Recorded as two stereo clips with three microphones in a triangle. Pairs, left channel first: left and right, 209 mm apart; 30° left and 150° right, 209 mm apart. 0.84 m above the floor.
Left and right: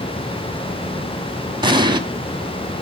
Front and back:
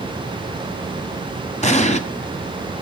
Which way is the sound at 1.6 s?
25° right.